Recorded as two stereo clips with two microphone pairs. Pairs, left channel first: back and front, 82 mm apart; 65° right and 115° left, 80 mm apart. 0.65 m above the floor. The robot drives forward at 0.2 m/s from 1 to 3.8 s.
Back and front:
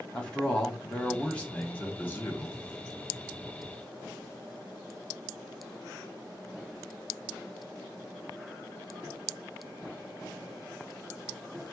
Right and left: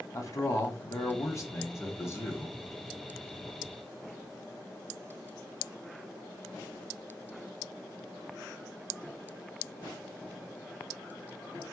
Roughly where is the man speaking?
Right.